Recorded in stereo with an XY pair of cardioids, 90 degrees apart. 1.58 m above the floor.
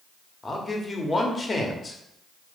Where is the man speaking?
30° left, 0.7 m.